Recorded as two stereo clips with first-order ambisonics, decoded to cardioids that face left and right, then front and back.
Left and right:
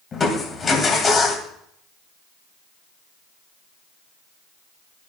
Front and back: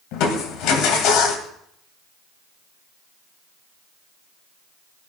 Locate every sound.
0.1 s crushing: 25° left, 2.0 m